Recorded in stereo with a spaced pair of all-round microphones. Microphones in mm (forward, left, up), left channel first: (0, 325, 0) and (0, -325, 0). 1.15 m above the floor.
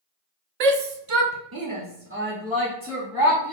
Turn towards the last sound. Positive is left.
turn(degrees=0)  # may be behind; listen again after turning